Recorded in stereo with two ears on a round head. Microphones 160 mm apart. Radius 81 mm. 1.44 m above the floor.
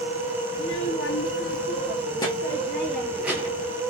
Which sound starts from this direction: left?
A child speaking, at 0.5 s.